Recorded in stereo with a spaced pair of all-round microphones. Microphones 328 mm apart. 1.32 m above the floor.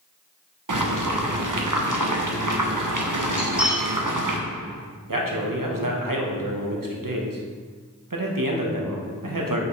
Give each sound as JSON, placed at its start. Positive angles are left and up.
{"t": 0.7, "sound": "boiling", "side_deg": -70, "distance_m": 0.7}
{"t": 3.4, "sound": "cutlery clinking", "side_deg": -5, "distance_m": 2.5}
{"t": 5.1, "sound": "a man speaking", "side_deg": -80, "distance_m": 1.0}